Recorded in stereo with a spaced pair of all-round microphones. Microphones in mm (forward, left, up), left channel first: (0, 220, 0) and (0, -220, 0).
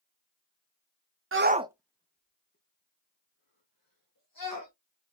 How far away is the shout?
About 0.5 m.